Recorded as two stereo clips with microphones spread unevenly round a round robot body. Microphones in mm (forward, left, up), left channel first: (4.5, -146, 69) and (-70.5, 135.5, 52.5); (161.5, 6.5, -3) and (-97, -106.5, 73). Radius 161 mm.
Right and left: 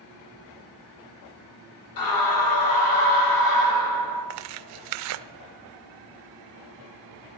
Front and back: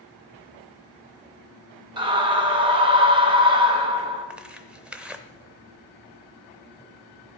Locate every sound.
2.0 s a scream: 80° right, 4 m
4.3 s tearing paper: 130° left, 0.5 m